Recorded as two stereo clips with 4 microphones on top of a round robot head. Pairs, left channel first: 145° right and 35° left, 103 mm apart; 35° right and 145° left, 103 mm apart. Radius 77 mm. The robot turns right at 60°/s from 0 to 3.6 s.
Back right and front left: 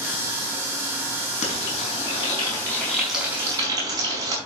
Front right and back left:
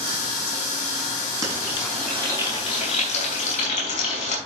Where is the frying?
155° right, 5 m; by 4.4 s 20° right, 5 m.